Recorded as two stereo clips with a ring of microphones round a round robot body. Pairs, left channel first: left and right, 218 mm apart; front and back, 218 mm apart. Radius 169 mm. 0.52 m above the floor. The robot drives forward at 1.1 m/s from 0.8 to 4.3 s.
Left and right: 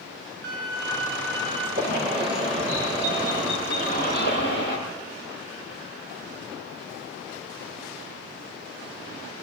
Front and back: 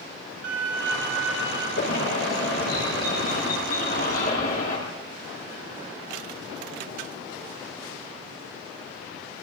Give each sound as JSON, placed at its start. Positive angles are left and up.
{"t": 0.4, "sound": "a violin", "azimuth_deg": -135, "distance_m": 4.0}
{"t": 1.8, "sound": "a bird", "azimuth_deg": -55, "distance_m": 9.5}